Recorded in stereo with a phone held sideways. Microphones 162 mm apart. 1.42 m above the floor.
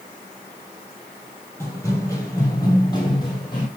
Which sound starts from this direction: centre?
Running footsteps, at 1.6 s.